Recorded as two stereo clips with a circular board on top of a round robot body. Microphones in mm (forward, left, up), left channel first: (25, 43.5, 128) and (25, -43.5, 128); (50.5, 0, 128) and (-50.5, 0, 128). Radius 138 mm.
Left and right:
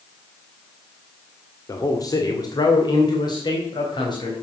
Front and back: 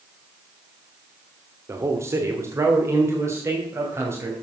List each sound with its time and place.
1.7 s a man speaking: 125° left, 1.9 m; by 4.3 s 115° left, 4 m